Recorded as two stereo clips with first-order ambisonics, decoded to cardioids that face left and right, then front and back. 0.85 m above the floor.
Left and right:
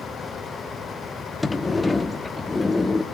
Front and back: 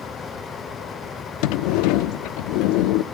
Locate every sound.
1.4 s a sliding door: 10° left, 0.7 m